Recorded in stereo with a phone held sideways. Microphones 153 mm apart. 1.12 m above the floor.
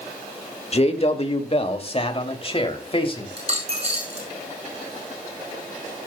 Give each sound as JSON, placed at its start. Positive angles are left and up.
{"t": 0.7, "sound": "a man speaking", "side_deg": 45, "distance_m": 1.9}
{"t": 3.4, "sound": "a dropped coin", "side_deg": -45, "distance_m": 6.5}